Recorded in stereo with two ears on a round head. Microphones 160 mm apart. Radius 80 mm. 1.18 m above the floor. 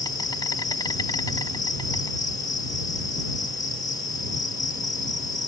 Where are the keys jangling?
No keys jangling in this recording.